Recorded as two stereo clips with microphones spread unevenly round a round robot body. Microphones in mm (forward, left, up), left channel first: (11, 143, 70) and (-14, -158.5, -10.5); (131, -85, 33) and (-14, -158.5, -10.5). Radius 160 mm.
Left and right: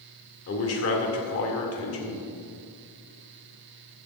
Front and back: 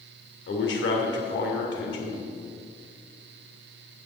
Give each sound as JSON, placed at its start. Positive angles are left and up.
{"t": 0.5, "sound": "a man speaking", "azimuth_deg": 35, "distance_m": 2.0}